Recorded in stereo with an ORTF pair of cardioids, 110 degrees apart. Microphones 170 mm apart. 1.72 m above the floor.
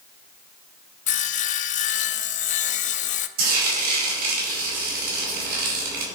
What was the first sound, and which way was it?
Sawing, 45° left.